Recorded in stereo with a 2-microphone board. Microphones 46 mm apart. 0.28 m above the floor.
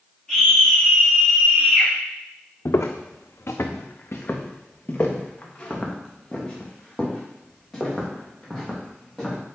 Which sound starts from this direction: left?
Footsteps, at 2.6 s.